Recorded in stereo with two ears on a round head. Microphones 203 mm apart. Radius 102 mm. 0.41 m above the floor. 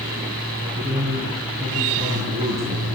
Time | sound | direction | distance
0.5 | a man speaking | 30° right (ahead or behind) | 4.5 m